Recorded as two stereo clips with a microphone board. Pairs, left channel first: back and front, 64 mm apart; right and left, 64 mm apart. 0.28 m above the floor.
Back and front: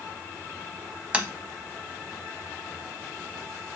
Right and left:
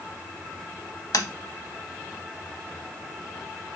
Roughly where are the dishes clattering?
No dishes clattering in this recording.